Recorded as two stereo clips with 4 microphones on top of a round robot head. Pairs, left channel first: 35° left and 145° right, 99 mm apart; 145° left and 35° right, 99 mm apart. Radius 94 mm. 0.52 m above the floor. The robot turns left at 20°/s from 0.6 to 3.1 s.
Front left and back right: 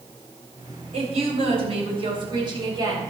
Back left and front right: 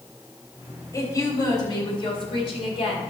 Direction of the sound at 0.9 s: 155° right.